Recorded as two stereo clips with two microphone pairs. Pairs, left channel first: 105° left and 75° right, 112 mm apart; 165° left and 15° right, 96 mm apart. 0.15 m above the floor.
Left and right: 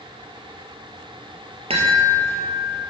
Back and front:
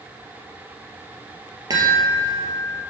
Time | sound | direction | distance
1.7 | a chime | 60° right | 2 m